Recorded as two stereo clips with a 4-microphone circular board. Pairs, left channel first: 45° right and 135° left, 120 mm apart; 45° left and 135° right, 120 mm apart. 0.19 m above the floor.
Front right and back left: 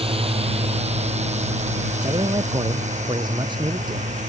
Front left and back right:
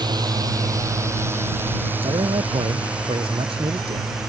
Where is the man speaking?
175° right.